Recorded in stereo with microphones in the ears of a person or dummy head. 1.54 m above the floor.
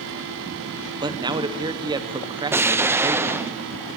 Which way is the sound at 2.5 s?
15° right (ahead or behind).